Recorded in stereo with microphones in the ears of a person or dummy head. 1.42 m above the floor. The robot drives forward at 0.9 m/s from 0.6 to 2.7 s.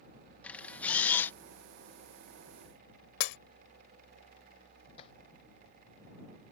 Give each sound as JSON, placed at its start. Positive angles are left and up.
{"t": 0.4, "sound": "a camera shutter", "side_deg": 5}
{"t": 3.2, "sound": "breaking glass", "side_deg": 60}
{"t": 5.0, "sound": "tapping", "side_deg": 30}